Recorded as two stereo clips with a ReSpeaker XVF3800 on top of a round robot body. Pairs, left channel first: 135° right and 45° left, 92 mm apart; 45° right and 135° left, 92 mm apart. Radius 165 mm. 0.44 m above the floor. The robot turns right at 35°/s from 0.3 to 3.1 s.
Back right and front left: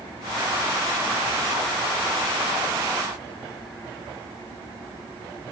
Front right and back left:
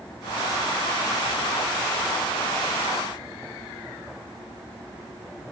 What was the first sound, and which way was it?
Only background noise.